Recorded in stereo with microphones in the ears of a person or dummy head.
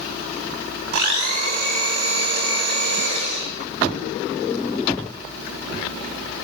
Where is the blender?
60° right (ahead or behind), 5.5 m.